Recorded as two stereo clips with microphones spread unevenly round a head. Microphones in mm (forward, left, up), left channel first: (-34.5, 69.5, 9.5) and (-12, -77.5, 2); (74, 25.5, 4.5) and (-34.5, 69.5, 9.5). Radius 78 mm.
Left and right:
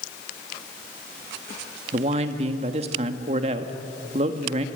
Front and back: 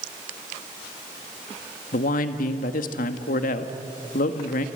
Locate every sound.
1.9 s a man speaking: 25° right, 1.4 m